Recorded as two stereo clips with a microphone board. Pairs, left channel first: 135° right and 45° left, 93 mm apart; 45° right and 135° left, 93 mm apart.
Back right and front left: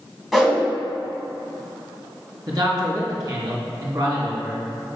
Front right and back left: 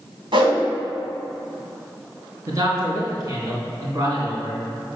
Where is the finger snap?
No finger snap in this recording.